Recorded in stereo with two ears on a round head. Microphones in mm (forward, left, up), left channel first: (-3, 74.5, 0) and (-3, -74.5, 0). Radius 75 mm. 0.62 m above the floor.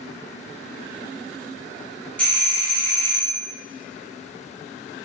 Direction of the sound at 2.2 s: 10° left (ahead or behind).